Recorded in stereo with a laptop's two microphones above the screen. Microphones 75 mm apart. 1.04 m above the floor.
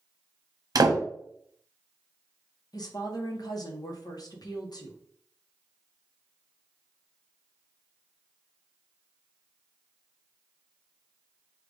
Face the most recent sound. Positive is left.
turn(degrees=60)  # may be behind; listen again after turning